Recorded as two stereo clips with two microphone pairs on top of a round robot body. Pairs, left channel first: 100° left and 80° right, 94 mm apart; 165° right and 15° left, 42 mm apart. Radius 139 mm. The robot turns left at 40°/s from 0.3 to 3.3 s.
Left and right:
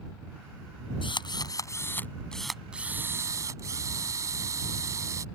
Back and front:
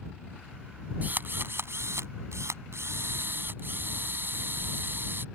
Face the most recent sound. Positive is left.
turn(degrees=-25)